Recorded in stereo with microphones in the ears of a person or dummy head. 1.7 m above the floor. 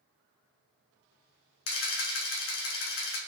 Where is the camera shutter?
75° left (ahead or behind), 3 m.